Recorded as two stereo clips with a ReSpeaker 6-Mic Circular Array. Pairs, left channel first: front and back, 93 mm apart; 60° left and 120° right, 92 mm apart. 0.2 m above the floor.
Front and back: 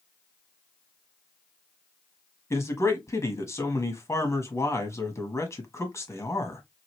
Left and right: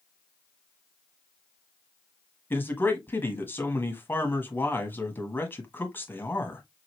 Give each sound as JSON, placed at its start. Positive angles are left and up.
{"t": 2.5, "sound": "a man speaking", "azimuth_deg": 15, "distance_m": 1.1}